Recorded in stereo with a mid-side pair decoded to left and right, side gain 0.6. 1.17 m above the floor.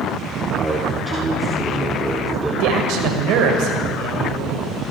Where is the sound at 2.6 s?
70° right, 5 m.